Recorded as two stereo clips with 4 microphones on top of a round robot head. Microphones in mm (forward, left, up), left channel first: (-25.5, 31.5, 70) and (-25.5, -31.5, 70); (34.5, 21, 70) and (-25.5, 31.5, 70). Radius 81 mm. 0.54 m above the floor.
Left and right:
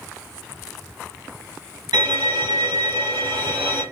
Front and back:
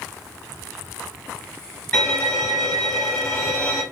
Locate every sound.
1.9 s a violin: 85° right, 1.2 m